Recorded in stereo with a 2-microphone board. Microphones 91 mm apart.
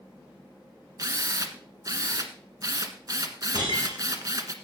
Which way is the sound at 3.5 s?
55° right (ahead or behind).